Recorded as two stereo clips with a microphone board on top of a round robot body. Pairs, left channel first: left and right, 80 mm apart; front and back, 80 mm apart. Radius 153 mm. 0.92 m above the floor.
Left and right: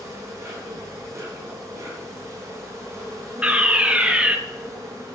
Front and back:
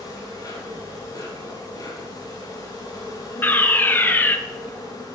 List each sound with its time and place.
0.0 s an insect: 40° right, 3.5 m
3.4 s a fire alarm: 30° right, 1.5 m